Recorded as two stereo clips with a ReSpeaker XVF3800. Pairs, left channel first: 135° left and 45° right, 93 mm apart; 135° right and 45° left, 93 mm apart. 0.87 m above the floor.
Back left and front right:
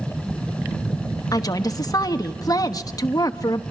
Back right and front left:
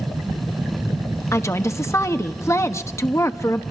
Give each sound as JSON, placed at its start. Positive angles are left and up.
{"t": 1.3, "sound": "a woman speaking", "azimuth_deg": 175, "distance_m": 1.1}